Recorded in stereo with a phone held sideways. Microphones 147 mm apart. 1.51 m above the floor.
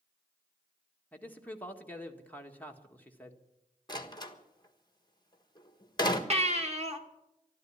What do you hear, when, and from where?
1.1 s a man speaking: 10° left (ahead or behind), 1.6 m
3.9 s a door slam: 30° left (ahead or behind), 1.5 m
6.3 s a baby crying: 45° right (ahead or behind), 1.6 m